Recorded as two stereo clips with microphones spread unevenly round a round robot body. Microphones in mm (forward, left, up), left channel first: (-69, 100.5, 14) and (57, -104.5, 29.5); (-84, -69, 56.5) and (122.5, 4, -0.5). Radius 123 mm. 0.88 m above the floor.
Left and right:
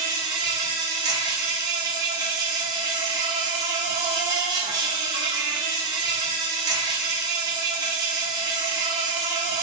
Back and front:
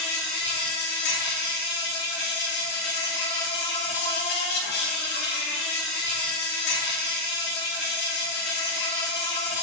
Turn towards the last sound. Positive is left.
turn(degrees=-130)